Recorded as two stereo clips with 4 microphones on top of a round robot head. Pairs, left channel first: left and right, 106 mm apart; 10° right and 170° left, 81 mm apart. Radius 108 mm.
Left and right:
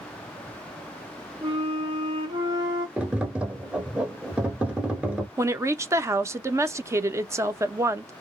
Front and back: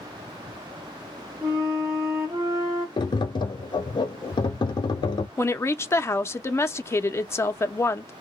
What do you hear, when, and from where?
1.4 s a flute: 125° right, 0.5 m
3.0 s tapping: 10° right, 0.7 m
5.4 s a woman speaking: 45° right, 0.6 m